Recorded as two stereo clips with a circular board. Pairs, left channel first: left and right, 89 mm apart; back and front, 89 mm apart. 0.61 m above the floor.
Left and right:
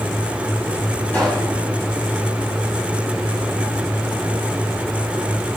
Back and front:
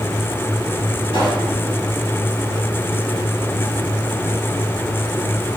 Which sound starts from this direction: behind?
A pop, at 1.1 s.